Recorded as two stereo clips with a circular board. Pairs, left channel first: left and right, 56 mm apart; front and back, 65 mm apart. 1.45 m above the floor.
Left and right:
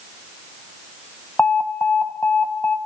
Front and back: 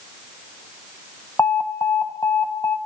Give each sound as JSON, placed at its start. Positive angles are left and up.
{"t": 1.4, "sound": "an alarm", "azimuth_deg": 40, "distance_m": 1.0}